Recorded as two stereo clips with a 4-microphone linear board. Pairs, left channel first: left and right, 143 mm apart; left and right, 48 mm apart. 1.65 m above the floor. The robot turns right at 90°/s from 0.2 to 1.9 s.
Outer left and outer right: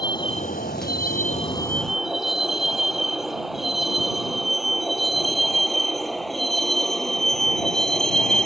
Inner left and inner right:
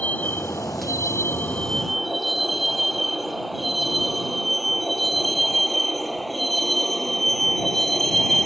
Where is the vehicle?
30° left (ahead or behind); by 8.5 s 5° left (ahead or behind).